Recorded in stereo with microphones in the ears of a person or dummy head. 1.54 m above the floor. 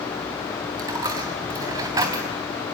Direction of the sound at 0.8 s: 25° right (ahead or behind).